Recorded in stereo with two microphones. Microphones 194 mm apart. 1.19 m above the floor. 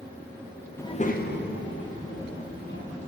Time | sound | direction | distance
0.8 | a child speaking | 10° left (ahead or behind) | 0.6 m